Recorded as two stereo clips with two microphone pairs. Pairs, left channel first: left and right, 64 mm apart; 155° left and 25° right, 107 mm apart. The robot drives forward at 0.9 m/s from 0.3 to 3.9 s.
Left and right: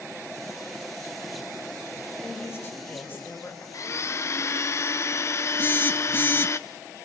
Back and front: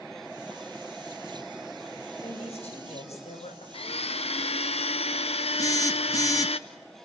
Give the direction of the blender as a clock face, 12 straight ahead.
8 o'clock.